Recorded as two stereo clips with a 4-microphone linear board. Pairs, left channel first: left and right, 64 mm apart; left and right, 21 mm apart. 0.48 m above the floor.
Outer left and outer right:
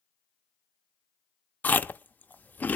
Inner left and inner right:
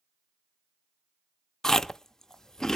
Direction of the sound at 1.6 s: 25° left (ahead or behind).